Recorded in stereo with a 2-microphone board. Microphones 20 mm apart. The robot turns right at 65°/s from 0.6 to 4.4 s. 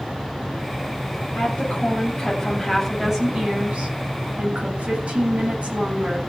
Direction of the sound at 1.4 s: 85° left.